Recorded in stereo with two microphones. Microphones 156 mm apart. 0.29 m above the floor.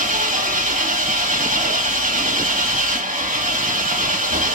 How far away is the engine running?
About 4.5 m.